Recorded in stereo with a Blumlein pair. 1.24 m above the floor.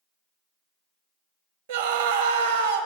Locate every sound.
1.7 s a scream: 55° right, 1.4 m